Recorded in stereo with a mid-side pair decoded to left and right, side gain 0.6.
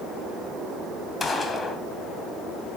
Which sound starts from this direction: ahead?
A gunshot, at 1.2 s.